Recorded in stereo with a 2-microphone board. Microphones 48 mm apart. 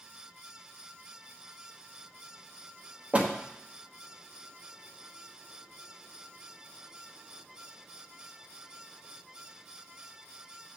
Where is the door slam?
30° right (ahead or behind), 1.1 m.